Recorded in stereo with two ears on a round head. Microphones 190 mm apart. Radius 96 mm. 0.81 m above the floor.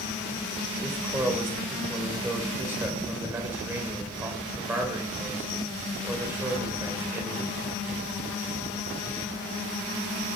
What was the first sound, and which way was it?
A man speaking, 10° right (ahead or behind).